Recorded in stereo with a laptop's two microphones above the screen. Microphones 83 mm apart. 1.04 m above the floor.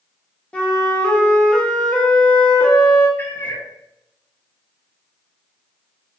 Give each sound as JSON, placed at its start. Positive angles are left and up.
{"t": 0.5, "sound": "a flute", "side_deg": 15, "distance_m": 0.7}
{"t": 3.2, "sound": "a cat meowing", "side_deg": 25, "distance_m": 0.6}